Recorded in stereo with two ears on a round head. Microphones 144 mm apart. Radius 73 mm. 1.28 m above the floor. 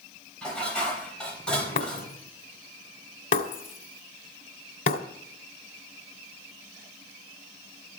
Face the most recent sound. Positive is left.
turn(degrees=55)  # may be behind; listen again after turning